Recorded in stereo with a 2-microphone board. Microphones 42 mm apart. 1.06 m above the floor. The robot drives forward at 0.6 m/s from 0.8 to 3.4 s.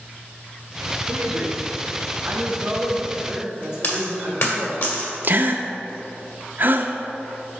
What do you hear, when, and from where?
1.1 s a man speaking: 55° right (ahead or behind), 0.9 m; by 4.8 s 20° right (ahead or behind), 1.9 m
3.8 s a dropped coin: 65° left (ahead or behind), 1.7 m
5.2 s a gasp: 50° right (ahead or behind), 0.5 m